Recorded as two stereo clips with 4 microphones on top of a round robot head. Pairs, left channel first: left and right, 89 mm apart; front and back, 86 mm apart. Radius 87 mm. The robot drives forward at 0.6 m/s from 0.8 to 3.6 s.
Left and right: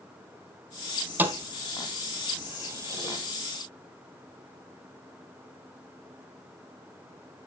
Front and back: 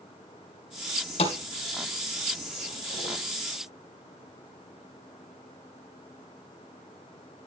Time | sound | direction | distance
1.2 | a thud | 20° right | 2.5 m